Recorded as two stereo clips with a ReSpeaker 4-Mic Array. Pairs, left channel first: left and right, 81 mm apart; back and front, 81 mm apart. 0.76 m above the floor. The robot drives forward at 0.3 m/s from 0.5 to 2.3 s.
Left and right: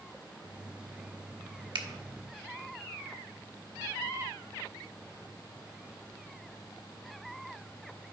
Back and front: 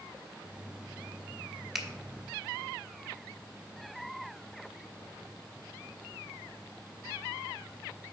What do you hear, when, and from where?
1.8 s a finger snap: 85° right, 1.1 m; by 1.9 s 90° right, 1.1 m